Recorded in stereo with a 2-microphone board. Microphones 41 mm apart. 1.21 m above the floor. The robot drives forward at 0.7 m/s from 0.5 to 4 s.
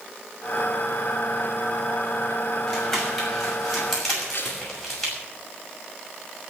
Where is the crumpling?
10° left (ahead or behind), 6 m.